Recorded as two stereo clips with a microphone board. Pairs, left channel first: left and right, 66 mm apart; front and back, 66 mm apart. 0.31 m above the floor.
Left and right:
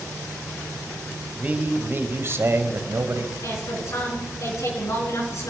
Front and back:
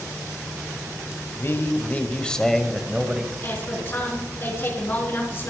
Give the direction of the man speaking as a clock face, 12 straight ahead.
1 o'clock.